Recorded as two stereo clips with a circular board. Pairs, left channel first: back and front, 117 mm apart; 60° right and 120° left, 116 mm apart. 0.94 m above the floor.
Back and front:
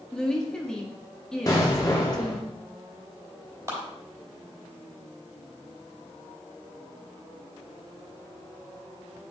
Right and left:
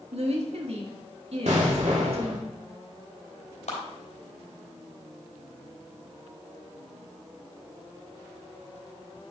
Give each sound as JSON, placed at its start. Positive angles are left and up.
{"t": 0.1, "sound": "a woman speaking", "azimuth_deg": 95, "distance_m": 1.6}
{"t": 1.5, "sound": "an explosion", "azimuth_deg": 125, "distance_m": 2.0}
{"t": 3.7, "sound": "a clap", "azimuth_deg": -60, "distance_m": 3.5}